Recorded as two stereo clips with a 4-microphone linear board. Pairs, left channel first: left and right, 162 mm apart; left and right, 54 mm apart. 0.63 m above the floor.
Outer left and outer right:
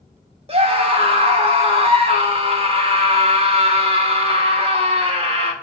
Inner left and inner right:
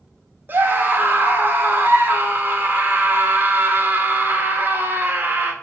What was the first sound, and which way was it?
A scream, 35° right (ahead or behind).